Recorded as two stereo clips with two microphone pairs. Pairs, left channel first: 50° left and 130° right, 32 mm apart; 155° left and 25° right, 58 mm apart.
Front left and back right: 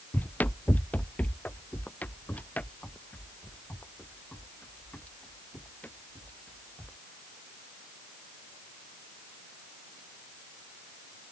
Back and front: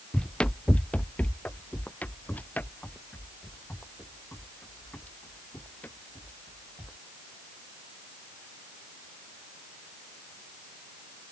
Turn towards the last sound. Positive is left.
turn(degrees=95)